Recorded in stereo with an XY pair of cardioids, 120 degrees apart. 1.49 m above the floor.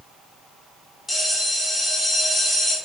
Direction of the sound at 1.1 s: 15° left.